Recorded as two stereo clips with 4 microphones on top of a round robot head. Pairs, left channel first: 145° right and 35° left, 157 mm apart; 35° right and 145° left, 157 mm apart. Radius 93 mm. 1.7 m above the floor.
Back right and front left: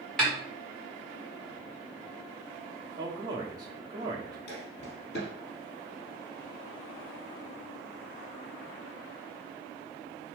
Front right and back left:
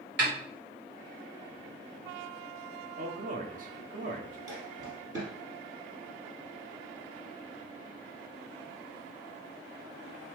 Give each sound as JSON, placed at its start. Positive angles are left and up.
{"t": 0.2, "sound": "a snare drum", "azimuth_deg": 130, "distance_m": 2.0}
{"t": 3.0, "sound": "a man speaking", "azimuth_deg": 105, "distance_m": 1.0}
{"t": 4.5, "sound": "footsteps", "azimuth_deg": -150, "distance_m": 2.5}